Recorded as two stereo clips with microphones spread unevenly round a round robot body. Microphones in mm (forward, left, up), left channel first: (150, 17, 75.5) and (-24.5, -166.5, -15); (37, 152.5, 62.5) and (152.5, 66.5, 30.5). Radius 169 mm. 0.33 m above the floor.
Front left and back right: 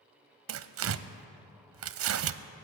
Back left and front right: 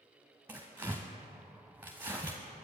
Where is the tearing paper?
115° right, 0.6 m.